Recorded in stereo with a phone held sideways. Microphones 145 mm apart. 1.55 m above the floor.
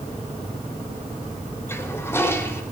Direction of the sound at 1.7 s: 15° left (ahead or behind).